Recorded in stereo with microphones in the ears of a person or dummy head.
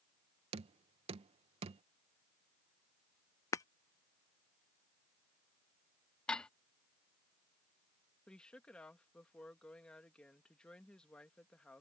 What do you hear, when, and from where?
0.5 s knocking: 35° right (ahead or behind)
3.5 s breaking glass: 20° left (ahead or behind)
6.3 s dishes clattering: 5° left (ahead or behind)
8.3 s a woman speaking: 10° left (ahead or behind)